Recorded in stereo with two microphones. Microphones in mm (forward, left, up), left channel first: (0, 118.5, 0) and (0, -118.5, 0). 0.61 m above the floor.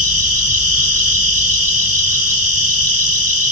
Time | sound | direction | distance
0.0 | an insect | 80° right | 2 m